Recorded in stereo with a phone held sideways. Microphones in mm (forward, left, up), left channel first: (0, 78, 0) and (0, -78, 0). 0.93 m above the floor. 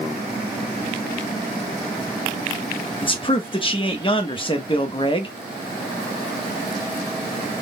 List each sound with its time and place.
3.0 s a man speaking: 30° left (ahead or behind), 1.1 m